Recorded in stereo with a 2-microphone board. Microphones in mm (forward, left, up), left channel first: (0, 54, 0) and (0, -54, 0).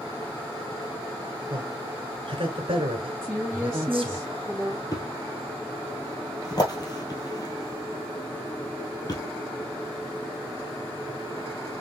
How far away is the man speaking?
About 2 m.